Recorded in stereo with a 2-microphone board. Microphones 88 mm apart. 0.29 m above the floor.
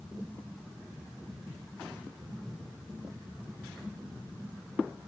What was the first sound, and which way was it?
Only background noise.